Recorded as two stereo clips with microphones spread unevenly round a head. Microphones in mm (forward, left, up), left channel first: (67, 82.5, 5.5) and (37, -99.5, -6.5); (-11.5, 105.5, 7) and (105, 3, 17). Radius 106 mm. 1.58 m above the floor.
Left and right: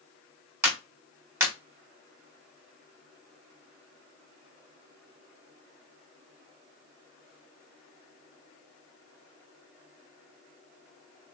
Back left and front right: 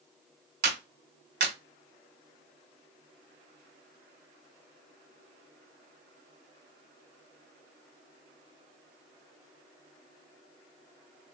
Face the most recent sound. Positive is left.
turn(degrees=-20)